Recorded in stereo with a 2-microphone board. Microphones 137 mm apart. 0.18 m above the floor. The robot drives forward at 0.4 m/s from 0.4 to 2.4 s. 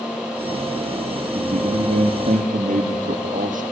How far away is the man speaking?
About 5.5 m.